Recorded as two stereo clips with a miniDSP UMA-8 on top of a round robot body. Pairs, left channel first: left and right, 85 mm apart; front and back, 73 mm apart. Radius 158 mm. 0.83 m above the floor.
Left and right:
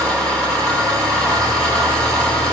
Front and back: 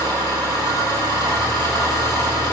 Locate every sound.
0.0 s an engine running: 170° left, 7.5 m